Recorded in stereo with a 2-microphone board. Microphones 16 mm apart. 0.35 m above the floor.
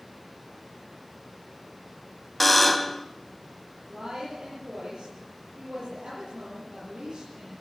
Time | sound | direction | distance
2.4 | a buzzer | 5° left (ahead or behind) | 0.8 m
3.9 | a woman speaking | 75° right (ahead or behind) | 8 m